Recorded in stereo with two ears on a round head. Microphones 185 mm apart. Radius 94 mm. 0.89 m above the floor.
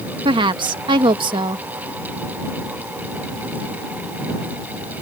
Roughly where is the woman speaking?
Right.